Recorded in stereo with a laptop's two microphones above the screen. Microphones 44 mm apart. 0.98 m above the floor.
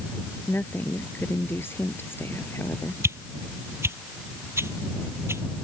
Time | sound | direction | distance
0.5 | a woman speaking | 55° left (ahead or behind) | ?
3.0 | a whoosh | 75° right (ahead or behind) | ?